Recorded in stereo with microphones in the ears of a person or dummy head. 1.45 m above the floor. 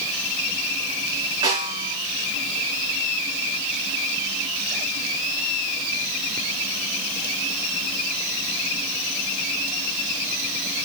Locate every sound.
1.4 s a snare drum: 25° right (ahead or behind), 5.5 m